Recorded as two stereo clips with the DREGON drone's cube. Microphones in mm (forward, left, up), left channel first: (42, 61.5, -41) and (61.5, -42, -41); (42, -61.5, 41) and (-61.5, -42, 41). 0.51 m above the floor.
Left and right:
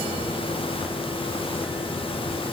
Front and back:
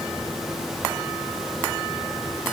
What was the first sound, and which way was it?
Only background noise.